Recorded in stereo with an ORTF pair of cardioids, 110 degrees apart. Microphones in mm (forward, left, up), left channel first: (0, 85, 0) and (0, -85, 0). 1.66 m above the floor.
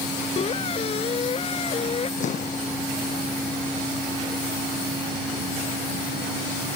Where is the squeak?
35° left.